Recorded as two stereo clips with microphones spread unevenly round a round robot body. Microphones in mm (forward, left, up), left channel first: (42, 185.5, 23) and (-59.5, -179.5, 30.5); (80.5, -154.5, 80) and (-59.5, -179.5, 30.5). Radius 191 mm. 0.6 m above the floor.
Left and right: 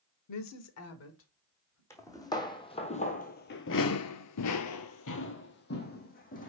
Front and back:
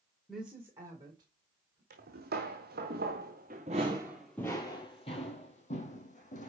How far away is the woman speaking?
About 1.2 m.